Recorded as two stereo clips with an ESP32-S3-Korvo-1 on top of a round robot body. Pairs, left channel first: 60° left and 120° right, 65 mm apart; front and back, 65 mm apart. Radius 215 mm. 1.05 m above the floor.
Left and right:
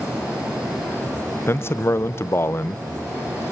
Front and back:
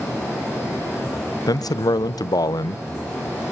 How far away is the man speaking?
About 0.8 m.